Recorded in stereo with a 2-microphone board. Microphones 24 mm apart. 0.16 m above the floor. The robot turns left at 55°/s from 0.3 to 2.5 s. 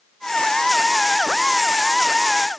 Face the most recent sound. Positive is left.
No sound to turn to.